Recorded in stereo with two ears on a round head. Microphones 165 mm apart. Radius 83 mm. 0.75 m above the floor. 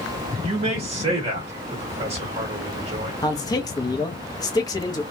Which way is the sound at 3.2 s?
20° left (ahead or behind).